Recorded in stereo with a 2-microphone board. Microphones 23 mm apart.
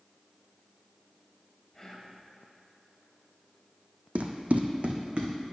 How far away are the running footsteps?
About 0.7 m.